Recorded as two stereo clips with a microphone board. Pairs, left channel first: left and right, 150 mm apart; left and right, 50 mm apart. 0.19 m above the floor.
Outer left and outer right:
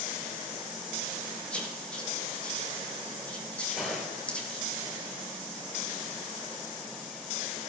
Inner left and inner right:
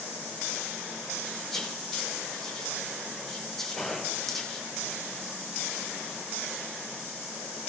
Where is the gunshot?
Centre (ahead or behind), 4 m.